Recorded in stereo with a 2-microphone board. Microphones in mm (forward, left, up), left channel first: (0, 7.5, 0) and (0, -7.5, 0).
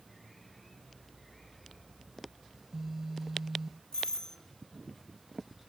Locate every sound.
2.5 s a phone buzzing: 20° right (ahead or behind), 0.5 m
3.9 s a doorbell: 40° left (ahead or behind), 3 m